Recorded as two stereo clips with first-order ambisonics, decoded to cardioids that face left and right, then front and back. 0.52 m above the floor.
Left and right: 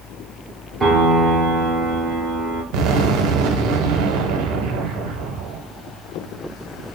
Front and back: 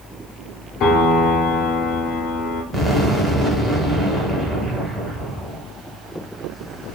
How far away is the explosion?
About 0.6 m.